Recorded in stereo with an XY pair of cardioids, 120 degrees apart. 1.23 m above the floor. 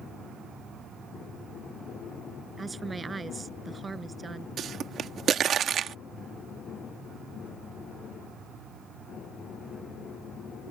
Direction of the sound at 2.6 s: 25° right.